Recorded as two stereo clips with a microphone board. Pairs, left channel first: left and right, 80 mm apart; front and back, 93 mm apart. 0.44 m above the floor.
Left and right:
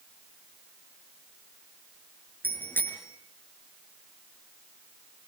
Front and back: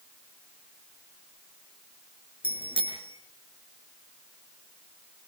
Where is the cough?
No cough in this recording.